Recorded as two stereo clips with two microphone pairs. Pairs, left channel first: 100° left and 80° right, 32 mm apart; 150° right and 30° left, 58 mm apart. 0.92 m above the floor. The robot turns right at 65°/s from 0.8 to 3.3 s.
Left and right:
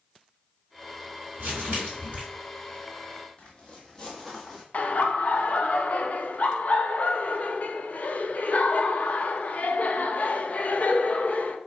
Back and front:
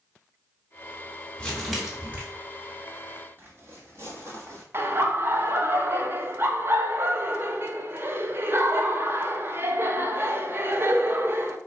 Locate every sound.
1.4 s crumpling: 85° right, 1.4 m; by 2.2 s 30° right, 1.4 m
3.4 s footsteps: 60° left, 1.3 m; by 4.6 s 10° left, 1.4 m
4.7 s laughter: 70° left, 0.5 m